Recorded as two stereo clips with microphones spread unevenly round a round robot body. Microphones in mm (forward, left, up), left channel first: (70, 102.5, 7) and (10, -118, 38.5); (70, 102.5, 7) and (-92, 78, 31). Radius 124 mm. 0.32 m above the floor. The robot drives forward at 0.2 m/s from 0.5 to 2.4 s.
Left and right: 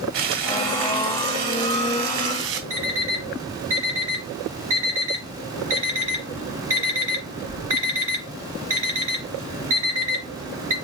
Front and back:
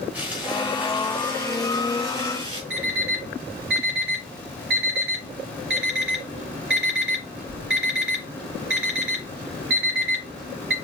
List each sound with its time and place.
0.1 s frying: 85° right, 1.6 m; by 2.6 s 100° right, 1.6 m
2.7 s an alarm clock: 175° right, 2.5 m